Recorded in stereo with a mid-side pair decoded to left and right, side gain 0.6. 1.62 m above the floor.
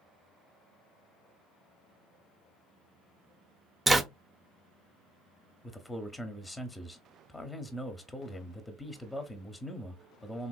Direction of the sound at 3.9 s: 15° right.